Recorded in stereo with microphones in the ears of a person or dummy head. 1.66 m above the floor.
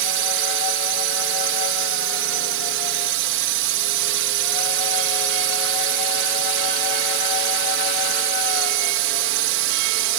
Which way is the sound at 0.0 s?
65° right (ahead or behind).